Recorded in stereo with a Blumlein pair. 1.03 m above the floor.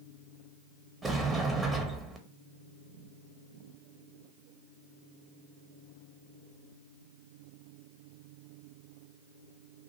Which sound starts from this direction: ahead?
A sliding door, at 1.0 s.